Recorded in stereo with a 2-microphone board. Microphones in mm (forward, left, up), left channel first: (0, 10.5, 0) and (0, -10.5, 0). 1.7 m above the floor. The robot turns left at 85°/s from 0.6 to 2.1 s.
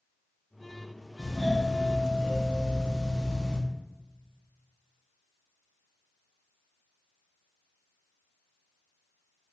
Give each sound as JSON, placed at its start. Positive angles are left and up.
{"t": 1.2, "sound": "a doorbell", "azimuth_deg": 170, "distance_m": 1.3}